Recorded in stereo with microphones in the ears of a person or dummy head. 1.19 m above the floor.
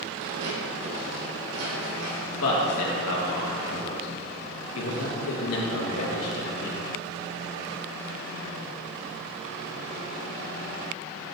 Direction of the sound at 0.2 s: 65° right (ahead or behind).